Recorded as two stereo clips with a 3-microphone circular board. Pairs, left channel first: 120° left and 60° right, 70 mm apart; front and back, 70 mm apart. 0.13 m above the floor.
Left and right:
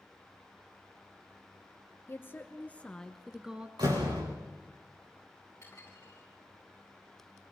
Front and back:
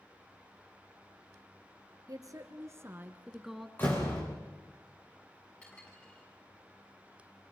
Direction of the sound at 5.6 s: 70° left.